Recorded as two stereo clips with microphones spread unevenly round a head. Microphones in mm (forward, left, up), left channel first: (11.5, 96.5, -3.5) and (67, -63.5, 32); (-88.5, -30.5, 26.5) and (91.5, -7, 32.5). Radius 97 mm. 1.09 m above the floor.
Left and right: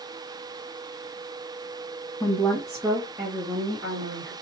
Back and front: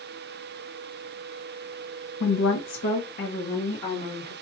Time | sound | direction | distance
2.2 | a woman speaking | straight behind | 0.8 m